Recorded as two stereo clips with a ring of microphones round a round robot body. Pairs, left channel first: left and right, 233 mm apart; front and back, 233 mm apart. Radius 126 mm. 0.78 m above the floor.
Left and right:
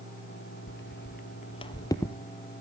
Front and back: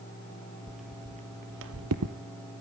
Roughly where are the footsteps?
Left.